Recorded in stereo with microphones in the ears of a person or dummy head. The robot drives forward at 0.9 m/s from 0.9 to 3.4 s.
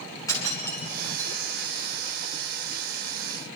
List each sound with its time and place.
0.3 s breaking glass: 25° left (ahead or behind), 7 m; by 1.3 s 20° left (ahead or behind), 7.5 m